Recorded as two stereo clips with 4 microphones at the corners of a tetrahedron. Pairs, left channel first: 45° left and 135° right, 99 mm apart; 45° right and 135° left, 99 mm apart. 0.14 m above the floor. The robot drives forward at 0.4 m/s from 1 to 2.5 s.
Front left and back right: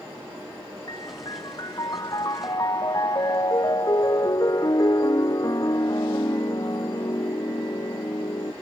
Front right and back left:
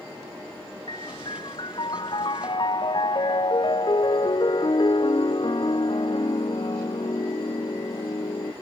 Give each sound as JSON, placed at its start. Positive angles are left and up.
{"t": 0.9, "sound": "a piano", "azimuth_deg": -5}